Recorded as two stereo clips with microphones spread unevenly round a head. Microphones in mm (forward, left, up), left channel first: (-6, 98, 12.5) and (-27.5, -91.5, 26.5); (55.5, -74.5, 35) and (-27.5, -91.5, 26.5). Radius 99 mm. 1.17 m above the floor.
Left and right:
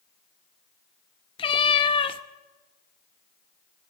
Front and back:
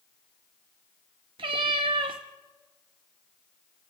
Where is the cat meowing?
145° left, 0.6 m.